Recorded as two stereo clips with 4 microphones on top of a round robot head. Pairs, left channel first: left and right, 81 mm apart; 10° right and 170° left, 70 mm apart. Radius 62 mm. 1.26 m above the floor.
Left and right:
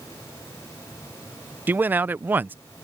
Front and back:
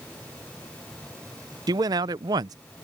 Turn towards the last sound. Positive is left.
turn(degrees=-160)